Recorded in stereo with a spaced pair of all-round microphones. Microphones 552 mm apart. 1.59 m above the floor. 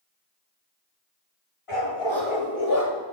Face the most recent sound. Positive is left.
turn(degrees=25)  # may be behind; listen again after turning